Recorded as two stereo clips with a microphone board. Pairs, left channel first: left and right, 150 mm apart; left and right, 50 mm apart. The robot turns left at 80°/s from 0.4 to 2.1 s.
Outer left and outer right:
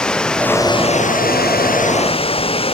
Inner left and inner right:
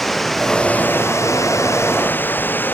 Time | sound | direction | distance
0.0 | running water | 175° left | ?